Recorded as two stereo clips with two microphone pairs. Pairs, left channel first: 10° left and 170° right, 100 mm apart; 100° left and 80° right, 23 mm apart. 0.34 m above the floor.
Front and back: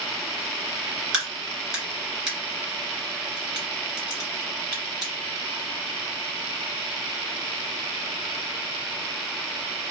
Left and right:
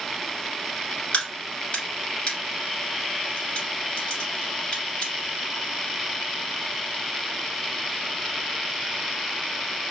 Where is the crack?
100° left, 2.0 m.